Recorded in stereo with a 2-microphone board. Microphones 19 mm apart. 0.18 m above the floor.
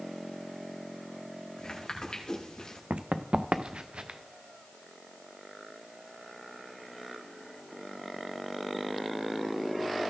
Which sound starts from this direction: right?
Running footsteps, at 2.9 s.